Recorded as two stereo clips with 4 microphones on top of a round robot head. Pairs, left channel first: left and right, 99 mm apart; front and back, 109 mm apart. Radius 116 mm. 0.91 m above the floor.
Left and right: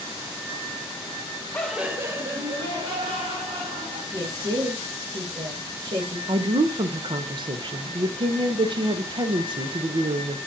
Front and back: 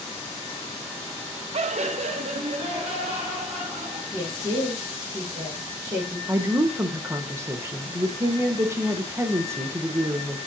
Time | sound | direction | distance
1.5 | laughter | 160° left | 0.5 m
4.1 | a woman speaking | 120° right | 1.3 m
6.3 | a woman speaking | 115° right | 0.6 m